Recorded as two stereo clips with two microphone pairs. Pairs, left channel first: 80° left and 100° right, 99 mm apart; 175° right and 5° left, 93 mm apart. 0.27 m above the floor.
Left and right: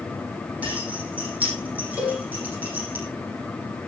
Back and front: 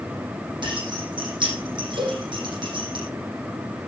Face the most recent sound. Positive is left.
turn(degrees=-25)